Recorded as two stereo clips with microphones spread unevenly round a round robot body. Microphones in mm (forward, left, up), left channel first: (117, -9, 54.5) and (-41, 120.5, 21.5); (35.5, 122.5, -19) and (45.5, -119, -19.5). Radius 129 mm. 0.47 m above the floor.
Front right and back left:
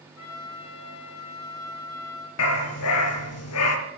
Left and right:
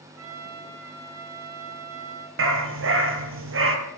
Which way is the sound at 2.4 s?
50° right.